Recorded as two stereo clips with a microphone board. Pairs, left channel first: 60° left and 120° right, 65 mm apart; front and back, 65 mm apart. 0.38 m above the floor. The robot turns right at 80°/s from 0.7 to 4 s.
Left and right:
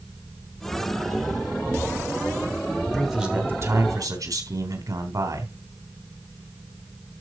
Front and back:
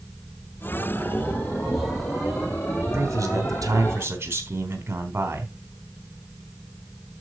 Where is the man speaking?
145° left, 3.5 m; by 5.5 s 130° right, 3.5 m.